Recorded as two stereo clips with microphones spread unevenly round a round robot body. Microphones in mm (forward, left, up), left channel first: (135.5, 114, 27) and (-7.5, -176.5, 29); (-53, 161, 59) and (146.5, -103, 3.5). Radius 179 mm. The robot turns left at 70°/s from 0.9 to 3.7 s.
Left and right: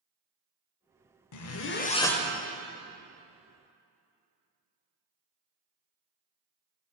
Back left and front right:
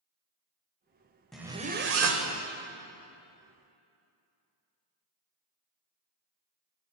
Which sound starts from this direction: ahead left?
A zipper, at 1.3 s.